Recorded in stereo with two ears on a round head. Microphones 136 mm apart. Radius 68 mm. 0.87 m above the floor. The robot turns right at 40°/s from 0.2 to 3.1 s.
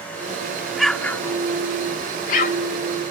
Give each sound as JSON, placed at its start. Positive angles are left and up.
{"t": 0.8, "sound": "an explosion", "side_deg": 0}